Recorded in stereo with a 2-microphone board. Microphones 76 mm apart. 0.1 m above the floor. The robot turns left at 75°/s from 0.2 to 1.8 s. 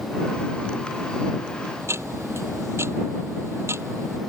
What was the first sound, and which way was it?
Ticking, 35° right (ahead or behind).